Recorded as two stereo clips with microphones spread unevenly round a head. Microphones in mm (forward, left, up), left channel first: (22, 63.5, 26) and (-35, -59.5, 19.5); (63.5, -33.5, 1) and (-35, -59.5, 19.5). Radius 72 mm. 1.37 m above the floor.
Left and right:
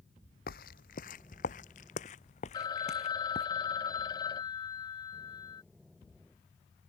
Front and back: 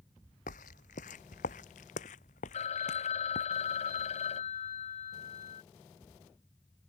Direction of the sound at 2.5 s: Straight ahead.